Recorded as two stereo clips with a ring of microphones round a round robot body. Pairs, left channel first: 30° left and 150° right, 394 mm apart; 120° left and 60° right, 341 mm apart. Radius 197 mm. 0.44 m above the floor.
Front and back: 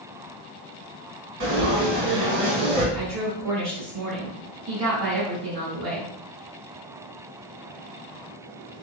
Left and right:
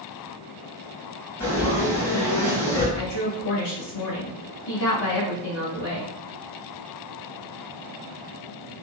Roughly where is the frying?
Behind right.